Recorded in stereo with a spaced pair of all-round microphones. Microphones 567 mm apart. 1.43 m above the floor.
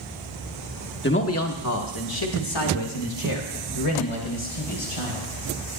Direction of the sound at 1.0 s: 20° left (ahead or behind).